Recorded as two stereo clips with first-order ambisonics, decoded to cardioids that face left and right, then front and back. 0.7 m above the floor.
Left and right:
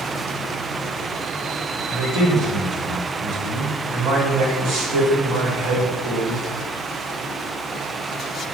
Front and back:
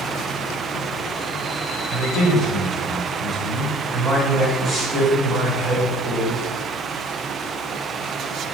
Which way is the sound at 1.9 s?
90° right.